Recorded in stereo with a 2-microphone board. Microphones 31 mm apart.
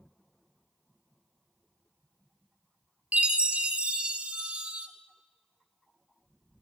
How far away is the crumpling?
I don't hear crumpling.